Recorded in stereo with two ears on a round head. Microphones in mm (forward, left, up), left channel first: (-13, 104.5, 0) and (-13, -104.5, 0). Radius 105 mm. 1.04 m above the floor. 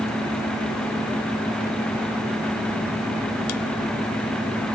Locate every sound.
Only background noise.